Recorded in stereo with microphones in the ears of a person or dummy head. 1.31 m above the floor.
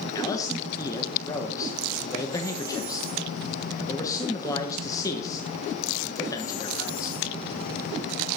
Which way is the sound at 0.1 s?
15° left (ahead or behind).